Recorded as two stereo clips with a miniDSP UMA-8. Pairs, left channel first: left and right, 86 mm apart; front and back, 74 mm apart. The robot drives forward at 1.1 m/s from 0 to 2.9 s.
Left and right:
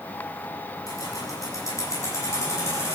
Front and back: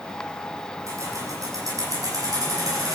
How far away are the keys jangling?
About 6 m.